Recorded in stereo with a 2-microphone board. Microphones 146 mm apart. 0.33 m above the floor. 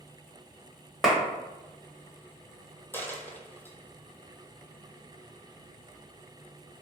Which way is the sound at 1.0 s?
Centre (ahead or behind).